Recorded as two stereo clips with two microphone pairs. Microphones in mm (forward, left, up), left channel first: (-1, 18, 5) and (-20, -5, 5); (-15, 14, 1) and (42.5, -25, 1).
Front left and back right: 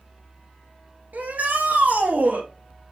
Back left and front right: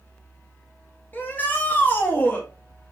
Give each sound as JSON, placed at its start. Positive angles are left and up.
{"t": 1.1, "sound": "a shout", "azimuth_deg": -150, "distance_m": 2.0}